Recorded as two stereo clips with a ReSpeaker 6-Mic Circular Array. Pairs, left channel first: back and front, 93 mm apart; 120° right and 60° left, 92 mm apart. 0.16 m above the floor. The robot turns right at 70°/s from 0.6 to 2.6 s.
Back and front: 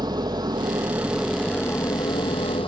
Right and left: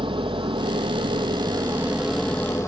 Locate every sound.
0.0 s an engine running: 45° left, 1.8 m; by 2.7 s 175° right, 1.8 m